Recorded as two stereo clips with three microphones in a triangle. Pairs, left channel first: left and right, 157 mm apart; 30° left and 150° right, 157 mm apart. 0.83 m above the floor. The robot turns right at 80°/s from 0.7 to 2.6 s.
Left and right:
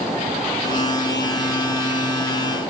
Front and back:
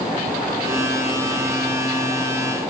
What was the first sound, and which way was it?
Only background noise.